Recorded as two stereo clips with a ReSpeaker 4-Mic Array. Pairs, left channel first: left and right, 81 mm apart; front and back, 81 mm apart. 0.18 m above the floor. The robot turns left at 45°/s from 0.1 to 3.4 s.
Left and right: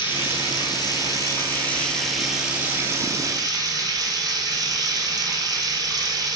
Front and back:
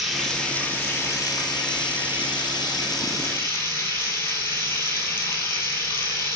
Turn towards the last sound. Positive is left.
turn(degrees=-55)